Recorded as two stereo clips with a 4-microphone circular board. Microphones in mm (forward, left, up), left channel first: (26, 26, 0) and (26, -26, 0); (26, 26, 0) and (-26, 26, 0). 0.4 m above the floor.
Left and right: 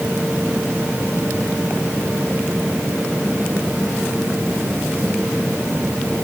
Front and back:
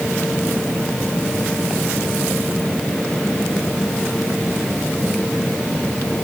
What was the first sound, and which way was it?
Only background noise.